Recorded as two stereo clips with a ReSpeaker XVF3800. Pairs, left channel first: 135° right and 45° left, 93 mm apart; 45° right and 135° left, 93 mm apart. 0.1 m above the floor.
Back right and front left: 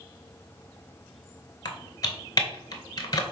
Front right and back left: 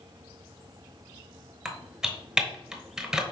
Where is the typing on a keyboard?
145° right, 0.7 m.